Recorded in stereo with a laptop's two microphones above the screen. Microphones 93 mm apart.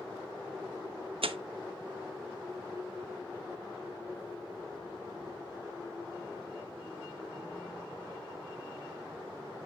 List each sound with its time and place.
1.2 s tearing paper: 75° right (ahead or behind), 0.7 m